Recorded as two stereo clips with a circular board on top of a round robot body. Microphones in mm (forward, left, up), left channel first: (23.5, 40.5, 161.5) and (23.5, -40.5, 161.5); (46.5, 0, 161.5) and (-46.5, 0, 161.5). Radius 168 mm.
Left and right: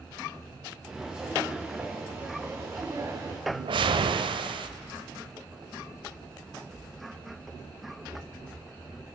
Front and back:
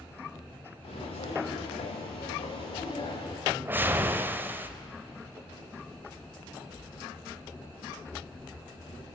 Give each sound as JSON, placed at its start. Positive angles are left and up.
{"t": 0.8, "sound": "footsteps", "azimuth_deg": -10, "distance_m": 3.0}
{"t": 3.5, "sound": "a whoosh", "azimuth_deg": -110, "distance_m": 0.6}